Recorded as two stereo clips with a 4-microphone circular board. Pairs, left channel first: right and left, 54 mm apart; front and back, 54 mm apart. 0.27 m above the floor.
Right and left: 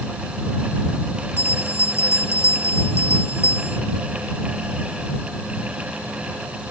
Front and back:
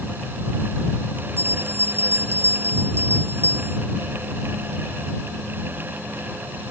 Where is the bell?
135° right.